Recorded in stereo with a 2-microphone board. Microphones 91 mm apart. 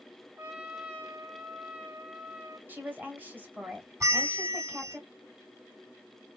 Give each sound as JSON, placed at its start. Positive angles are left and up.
{"t": 0.4, "sound": "a trumpet", "side_deg": -20, "distance_m": 1.2}
{"t": 2.7, "sound": "a woman speaking", "side_deg": -20, "distance_m": 2.5}
{"t": 4.0, "sound": "a bell", "side_deg": -35, "distance_m": 2.0}